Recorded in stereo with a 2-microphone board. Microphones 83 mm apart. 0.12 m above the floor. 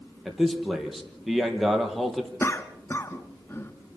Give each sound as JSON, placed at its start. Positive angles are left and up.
{"t": 0.2, "sound": "a man speaking", "side_deg": 0, "distance_m": 3.0}
{"t": 2.4, "sound": "a cough", "side_deg": 30, "distance_m": 1.2}